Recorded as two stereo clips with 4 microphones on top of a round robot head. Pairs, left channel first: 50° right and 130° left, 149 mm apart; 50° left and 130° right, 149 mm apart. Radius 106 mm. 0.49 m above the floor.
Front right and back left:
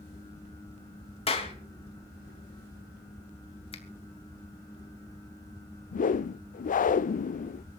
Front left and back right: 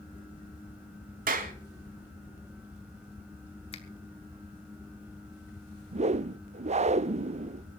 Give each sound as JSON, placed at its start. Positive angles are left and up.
{"t": 1.3, "sound": "a clap", "azimuth_deg": -100, "distance_m": 3.5}
{"t": 3.7, "sound": "a finger snap", "azimuth_deg": 0, "distance_m": 2.5}
{"t": 5.9, "sound": "a whoosh", "azimuth_deg": -85, "distance_m": 0.5}